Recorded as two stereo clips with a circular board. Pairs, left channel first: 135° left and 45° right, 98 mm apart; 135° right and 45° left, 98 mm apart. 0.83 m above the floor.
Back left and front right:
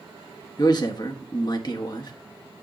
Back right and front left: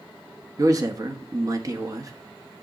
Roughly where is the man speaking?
Left.